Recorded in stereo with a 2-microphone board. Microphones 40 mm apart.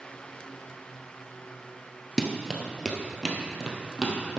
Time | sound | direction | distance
2.2 | running footsteps | 5° left (ahead or behind) | 1.0 m